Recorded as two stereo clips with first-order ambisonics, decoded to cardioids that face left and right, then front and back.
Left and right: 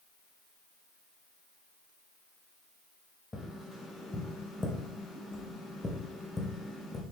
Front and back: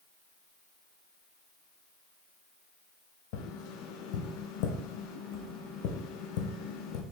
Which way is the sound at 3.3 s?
10° left.